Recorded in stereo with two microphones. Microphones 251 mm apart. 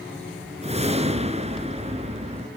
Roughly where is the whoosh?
Right.